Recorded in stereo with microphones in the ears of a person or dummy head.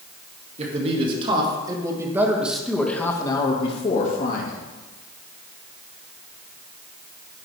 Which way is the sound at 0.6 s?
35° right (ahead or behind).